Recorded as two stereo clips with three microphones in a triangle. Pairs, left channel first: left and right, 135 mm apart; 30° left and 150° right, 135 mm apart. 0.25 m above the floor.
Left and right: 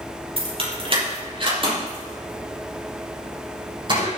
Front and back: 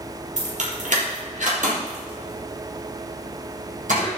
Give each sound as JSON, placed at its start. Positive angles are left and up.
{"t": 0.4, "sound": "keys jangling", "azimuth_deg": -135, "distance_m": 4.5}